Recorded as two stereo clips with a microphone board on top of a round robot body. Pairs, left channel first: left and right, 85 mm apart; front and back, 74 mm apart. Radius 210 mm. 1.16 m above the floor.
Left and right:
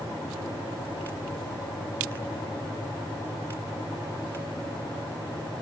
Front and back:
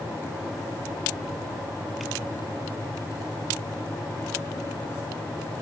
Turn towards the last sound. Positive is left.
No sound to turn to.